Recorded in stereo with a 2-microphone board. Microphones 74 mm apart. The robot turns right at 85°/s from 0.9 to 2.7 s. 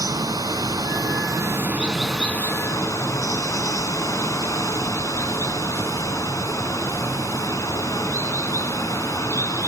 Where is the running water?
95° right, 1.5 m; by 9.7 s 55° left, 1.5 m.